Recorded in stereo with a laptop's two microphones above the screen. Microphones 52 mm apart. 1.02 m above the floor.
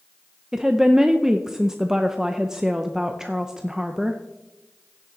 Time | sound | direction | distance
0.5 | a woman speaking | 10° right (ahead or behind) | 0.5 m